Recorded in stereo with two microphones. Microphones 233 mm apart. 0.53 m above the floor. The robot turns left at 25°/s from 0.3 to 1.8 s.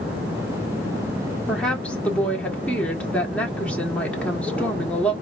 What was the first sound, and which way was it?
A woman speaking, centre (ahead or behind).